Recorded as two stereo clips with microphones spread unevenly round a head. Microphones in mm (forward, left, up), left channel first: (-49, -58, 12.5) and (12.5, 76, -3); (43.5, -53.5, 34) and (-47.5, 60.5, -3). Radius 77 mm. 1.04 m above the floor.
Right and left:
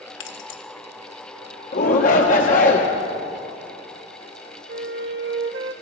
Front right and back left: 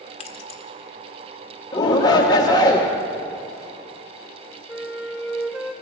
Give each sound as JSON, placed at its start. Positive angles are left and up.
{"t": 0.2, "sound": "keys jangling", "azimuth_deg": -100, "distance_m": 1.2}
{"t": 1.7, "sound": "a shout", "azimuth_deg": -120, "distance_m": 1.1}
{"t": 4.7, "sound": "a flute", "azimuth_deg": 40, "distance_m": 0.9}